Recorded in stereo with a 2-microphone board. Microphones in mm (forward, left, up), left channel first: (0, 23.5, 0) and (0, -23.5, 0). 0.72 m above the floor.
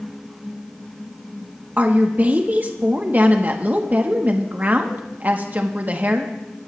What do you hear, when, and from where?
1.8 s a woman speaking: 40° right (ahead or behind), 1.0 m